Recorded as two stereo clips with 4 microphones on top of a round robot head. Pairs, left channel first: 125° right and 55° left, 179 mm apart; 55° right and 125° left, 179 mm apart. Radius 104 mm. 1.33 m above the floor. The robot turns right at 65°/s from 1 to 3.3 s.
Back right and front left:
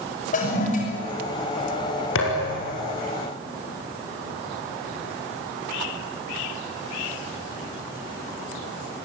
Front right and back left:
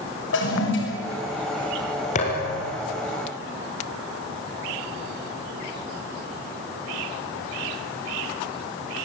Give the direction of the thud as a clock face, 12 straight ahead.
4 o'clock.